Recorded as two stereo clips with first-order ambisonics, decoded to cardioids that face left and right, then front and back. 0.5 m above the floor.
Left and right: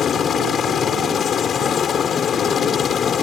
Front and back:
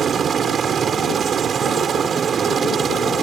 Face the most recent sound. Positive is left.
turn(degrees=130)